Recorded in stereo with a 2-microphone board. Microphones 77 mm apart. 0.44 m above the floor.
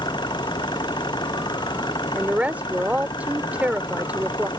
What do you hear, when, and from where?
0.0 s an engine running: 85° left
2.1 s a woman speaking: 20° right (ahead or behind)